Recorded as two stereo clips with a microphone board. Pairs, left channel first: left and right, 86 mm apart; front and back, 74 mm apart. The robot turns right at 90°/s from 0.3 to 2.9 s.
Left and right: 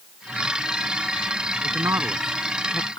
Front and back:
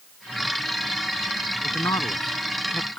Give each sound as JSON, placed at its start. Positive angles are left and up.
{"t": 1.6, "sound": "a man speaking", "azimuth_deg": -60}